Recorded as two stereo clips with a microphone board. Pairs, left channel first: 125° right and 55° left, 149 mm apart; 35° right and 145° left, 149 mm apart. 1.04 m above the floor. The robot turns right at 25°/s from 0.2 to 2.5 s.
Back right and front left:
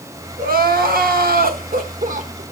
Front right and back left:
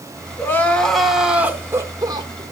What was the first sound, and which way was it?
Crying, 40° left.